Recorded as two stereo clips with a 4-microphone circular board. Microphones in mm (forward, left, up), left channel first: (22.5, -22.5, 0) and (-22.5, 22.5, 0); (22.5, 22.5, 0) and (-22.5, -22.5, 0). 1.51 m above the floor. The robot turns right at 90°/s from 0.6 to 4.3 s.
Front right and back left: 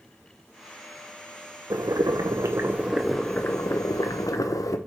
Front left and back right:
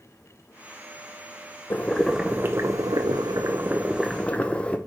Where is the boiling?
100° left, 0.7 m; by 4.8 s 25° right, 0.7 m.